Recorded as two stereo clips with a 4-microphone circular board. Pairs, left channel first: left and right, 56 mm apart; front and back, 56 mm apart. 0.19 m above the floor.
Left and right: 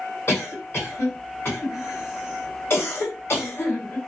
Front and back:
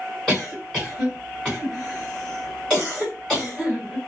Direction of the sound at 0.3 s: 70° left.